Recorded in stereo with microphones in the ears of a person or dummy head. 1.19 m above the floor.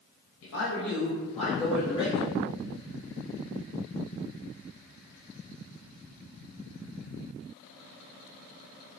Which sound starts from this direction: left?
A man speaking, at 0.4 s.